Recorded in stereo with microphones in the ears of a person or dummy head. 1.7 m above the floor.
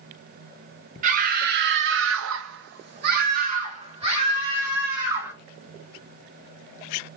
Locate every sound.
1.0 s a scream: 45° right (ahead or behind), 1.0 m; by 5.3 s 15° right (ahead or behind), 2.0 m